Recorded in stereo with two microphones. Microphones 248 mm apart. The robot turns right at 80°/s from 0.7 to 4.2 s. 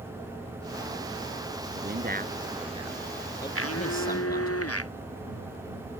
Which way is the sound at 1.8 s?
35° right (ahead or behind).